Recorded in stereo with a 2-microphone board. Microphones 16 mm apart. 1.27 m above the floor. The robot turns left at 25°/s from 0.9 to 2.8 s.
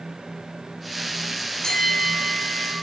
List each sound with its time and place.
1.6 s a bell: 45° left (ahead or behind), 5.5 m; by 2.7 s 20° left (ahead or behind), 5.5 m